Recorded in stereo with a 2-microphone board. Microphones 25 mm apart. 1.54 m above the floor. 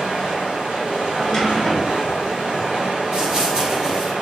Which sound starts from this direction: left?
A drawer, at 1.1 s.